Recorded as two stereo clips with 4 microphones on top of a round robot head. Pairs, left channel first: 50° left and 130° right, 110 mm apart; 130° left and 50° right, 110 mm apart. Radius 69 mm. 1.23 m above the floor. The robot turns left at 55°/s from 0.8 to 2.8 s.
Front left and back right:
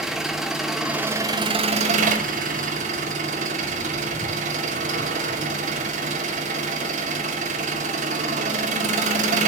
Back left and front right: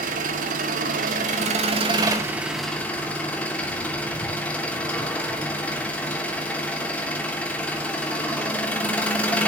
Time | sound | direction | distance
0.0 | an engine running | 40° right | 2.5 m